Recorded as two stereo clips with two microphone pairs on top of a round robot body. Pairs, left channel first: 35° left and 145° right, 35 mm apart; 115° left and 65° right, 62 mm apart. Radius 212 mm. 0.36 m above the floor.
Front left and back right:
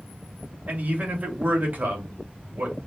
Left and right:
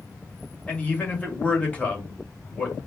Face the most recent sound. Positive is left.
turn(degrees=175)